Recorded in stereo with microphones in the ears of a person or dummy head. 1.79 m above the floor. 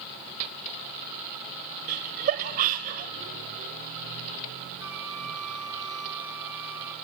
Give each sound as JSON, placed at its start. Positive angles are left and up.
{"t": 1.9, "sound": "laughter", "side_deg": -40, "distance_m": 0.9}
{"t": 4.8, "sound": "a flute", "side_deg": -10, "distance_m": 4.0}